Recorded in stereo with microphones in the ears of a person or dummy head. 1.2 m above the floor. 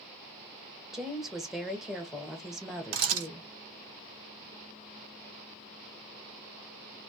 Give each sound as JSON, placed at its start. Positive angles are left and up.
{"t": 0.9, "sound": "a woman speaking", "side_deg": -5, "distance_m": 0.6}
{"t": 2.9, "sound": "a camera shutter", "side_deg": -80, "distance_m": 1.2}